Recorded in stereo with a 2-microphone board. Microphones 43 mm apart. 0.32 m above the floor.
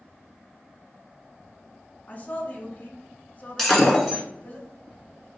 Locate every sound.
2.1 s a woman speaking: 35° left (ahead or behind), 1.3 m
3.6 s breaking glass: 5° left (ahead or behind), 1.4 m